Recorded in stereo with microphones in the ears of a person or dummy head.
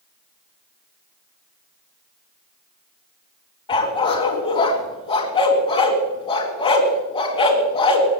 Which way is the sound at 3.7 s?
25° left (ahead or behind).